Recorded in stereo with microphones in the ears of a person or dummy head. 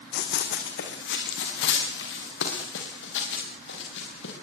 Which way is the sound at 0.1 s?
70° left (ahead or behind).